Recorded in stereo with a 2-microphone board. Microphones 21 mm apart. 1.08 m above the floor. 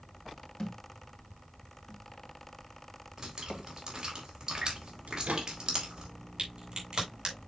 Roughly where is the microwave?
Right.